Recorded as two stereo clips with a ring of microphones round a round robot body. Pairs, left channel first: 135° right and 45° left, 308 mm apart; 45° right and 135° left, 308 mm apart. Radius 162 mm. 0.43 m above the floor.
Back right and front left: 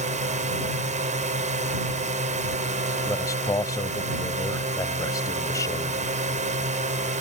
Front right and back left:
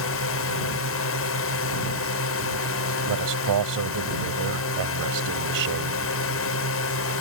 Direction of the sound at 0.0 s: 15° right.